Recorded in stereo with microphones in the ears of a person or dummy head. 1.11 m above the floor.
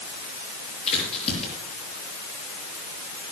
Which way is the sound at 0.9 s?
35° left (ahead or behind).